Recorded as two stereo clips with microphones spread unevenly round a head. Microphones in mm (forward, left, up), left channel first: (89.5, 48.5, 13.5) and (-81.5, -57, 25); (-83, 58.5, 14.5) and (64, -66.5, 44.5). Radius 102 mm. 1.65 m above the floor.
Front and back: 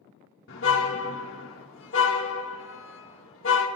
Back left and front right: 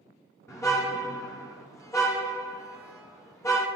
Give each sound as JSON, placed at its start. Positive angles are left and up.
{"t": 0.5, "sound": "a car horn", "azimuth_deg": 60, "distance_m": 2.5}